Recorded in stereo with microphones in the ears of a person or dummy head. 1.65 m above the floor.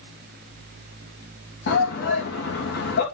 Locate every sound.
1.7 s a shout: 70° left (ahead or behind), 2.5 m